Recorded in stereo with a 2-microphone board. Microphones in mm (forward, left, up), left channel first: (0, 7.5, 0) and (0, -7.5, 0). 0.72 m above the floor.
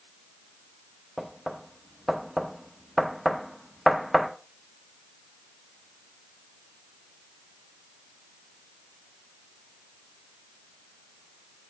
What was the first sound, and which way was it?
Knocking, centre (ahead or behind).